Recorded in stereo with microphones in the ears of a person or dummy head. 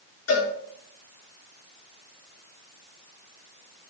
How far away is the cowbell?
About 4.5 m.